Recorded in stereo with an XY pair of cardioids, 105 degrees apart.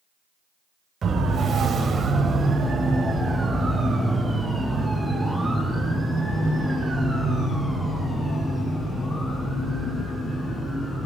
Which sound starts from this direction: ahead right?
A siren, at 1.0 s.